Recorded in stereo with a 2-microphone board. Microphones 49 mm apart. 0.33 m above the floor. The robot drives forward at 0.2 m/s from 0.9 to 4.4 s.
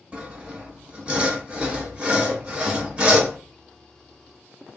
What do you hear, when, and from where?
0.1 s sawing: 25° right (ahead or behind), 0.9 m